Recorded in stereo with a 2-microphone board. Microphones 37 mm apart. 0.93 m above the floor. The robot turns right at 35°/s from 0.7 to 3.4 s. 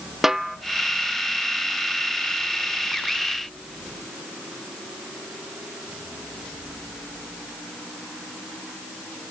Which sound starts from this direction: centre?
A snare drum, at 0.2 s.